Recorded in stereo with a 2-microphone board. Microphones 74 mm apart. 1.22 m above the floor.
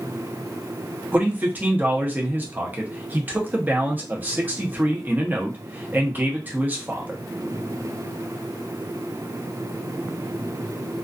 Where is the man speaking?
25° right (ahead or behind), 0.7 m.